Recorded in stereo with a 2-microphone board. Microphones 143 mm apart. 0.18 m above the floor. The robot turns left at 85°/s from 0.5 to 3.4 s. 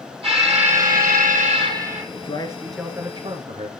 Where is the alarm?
45° right, 4 m; by 2.0 s 175° right, 4 m.